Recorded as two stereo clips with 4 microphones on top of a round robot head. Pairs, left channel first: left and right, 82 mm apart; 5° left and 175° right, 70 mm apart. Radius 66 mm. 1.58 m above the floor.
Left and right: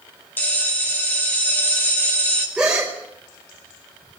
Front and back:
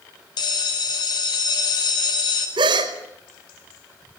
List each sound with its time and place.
0.4 s a bell: 25° left, 7.5 m
2.6 s a gasp: 175° right, 5 m